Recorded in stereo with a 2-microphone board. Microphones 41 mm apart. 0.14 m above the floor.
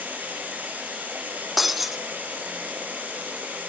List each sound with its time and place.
0.0 s running water: 45° right (ahead or behind), 6.5 m
1.6 s breaking glass: 5° right (ahead or behind), 1.0 m